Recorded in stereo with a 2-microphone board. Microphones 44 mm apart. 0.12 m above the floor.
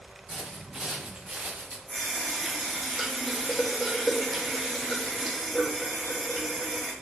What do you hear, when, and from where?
0.3 s footsteps: 10° right (ahead or behind), 4.5 m; by 1.8 s 30° right (ahead or behind), 3.5 m
1.9 s a running tap: centre (ahead or behind), 4 m